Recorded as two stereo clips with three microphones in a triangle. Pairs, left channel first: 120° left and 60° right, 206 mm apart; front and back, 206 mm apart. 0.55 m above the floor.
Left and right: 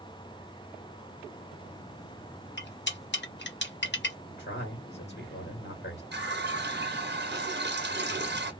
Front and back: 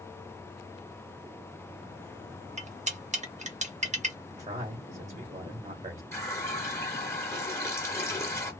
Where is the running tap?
75° right, 0.9 m.